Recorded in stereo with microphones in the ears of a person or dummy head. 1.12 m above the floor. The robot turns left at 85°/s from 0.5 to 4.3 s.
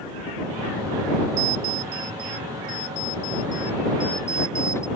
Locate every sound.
1.4 s an alarm clock: 95° right; by 4.9 s 15° left